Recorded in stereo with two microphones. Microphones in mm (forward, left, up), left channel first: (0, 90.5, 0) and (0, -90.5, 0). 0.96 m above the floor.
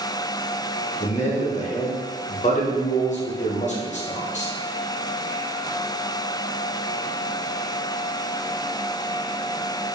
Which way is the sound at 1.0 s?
40° left (ahead or behind).